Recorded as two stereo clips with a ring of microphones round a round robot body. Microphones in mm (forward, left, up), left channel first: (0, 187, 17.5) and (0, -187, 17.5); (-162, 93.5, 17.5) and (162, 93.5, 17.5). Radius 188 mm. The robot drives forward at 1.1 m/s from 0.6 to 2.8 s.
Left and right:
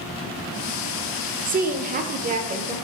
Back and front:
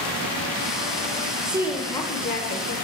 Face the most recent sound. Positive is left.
turn(degrees=-160)